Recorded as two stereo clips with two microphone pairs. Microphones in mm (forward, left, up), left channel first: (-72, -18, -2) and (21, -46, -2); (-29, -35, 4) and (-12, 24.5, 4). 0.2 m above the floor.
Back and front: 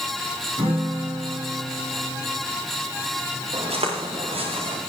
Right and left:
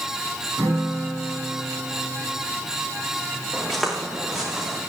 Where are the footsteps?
15° right, 6 m; by 4.8 s 5° right, 6 m.